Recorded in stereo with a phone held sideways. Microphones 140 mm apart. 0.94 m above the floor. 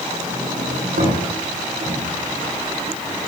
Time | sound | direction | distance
0.1 | a sliding door | 75° right (ahead or behind) | 8.5 m